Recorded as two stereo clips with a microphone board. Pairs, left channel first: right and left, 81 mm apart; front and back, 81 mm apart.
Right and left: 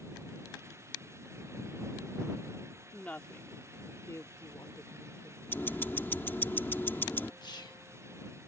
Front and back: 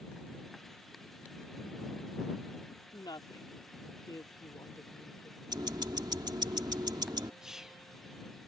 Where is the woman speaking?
15° right; by 5.4 s 50° right.